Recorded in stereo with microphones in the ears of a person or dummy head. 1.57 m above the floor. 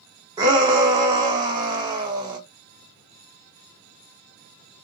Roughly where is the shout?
Centre.